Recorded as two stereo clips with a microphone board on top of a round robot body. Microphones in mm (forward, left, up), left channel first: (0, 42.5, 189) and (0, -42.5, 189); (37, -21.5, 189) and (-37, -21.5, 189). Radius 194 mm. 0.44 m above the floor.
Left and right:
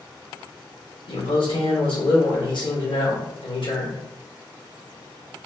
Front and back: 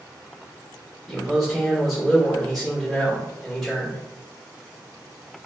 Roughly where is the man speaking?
Left.